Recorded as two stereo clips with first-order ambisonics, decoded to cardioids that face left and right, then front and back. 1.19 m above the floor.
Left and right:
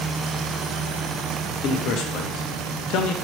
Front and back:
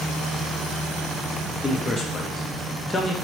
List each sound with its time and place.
1.6 s a man speaking: 65° left, 0.6 m